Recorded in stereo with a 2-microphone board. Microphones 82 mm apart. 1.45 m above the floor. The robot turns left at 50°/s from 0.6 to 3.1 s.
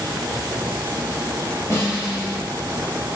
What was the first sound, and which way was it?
A snare drum, 85° left.